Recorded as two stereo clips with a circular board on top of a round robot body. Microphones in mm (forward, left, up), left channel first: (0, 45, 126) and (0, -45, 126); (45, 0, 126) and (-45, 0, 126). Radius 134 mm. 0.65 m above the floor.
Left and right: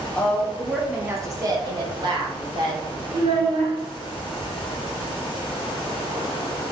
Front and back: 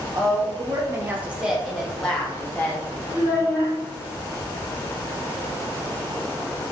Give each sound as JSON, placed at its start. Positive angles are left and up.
{"t": 0.1, "sound": "a woman speaking", "azimuth_deg": 155, "distance_m": 1.0}
{"t": 3.1, "sound": "a child speaking", "azimuth_deg": -110, "distance_m": 1.2}